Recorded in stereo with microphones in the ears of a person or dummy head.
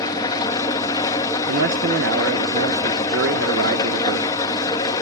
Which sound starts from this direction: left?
An engine running, at 0.0 s.